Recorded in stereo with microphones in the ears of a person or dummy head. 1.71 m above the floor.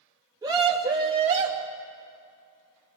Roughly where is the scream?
Centre.